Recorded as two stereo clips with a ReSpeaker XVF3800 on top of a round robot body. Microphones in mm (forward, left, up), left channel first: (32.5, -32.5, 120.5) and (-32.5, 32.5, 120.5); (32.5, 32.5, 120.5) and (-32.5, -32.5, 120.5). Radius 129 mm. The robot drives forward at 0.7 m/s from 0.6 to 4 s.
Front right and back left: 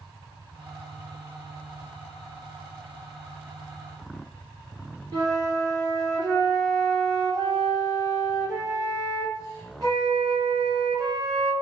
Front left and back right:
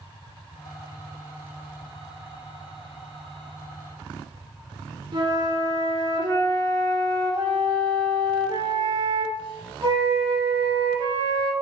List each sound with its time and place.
5.1 s a flute: 175° right, 0.8 m